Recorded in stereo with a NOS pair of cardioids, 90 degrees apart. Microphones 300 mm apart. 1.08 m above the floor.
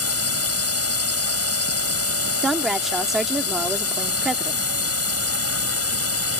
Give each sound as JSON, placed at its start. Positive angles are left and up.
{"t": 0.0, "sound": "a drone", "azimuth_deg": 50}
{"t": 2.4, "sound": "a woman speaking", "azimuth_deg": 0}